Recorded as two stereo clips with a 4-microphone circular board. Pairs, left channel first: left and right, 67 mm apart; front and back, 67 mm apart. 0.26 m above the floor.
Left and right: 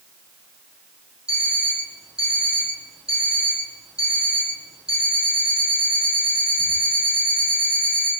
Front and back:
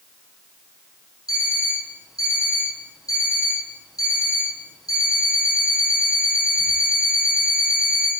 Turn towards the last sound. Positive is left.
turn(degrees=-15)